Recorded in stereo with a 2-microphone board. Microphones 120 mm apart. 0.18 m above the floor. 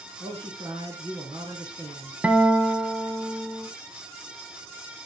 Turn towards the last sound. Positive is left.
turn(degrees=-10)  # may be behind; listen again after turning